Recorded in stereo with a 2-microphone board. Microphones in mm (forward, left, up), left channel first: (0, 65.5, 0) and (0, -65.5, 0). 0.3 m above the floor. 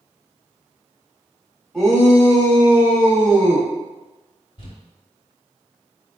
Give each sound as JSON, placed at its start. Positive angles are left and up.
{"t": 1.7, "sound": "a shout", "side_deg": 5, "distance_m": 1.8}
{"t": 4.6, "sound": "crumpling", "side_deg": 40, "distance_m": 1.2}